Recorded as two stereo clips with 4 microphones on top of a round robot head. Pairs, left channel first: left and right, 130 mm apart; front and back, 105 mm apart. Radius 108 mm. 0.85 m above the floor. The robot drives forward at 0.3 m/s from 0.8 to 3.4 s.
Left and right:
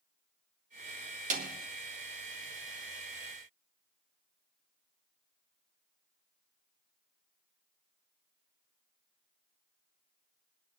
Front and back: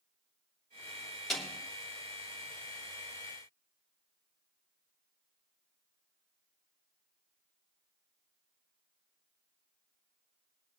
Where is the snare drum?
90° right, 2.5 m.